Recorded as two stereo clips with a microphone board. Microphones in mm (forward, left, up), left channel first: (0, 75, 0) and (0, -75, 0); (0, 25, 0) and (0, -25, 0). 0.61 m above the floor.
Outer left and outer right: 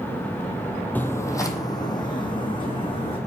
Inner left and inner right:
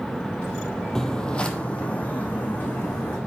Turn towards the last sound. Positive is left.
turn(degrees=35)  # may be behind; listen again after turning